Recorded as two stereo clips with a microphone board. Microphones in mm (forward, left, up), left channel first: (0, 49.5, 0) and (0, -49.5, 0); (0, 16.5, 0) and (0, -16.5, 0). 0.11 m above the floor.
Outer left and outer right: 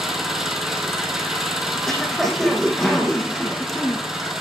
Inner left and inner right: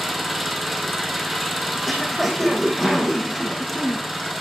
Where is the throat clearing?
Centre (ahead or behind), 4.5 m.